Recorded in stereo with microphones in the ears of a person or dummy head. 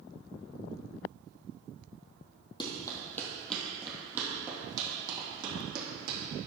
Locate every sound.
2.6 s running footsteps: 30° left (ahead or behind), 1.9 m; by 6.2 s 25° right (ahead or behind), 4 m